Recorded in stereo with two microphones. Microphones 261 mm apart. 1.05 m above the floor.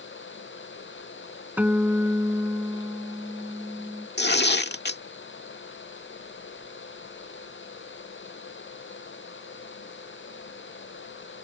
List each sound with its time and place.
1.6 s a guitar: 5° right (ahead or behind)
4.2 s tearing paper: 40° left (ahead or behind)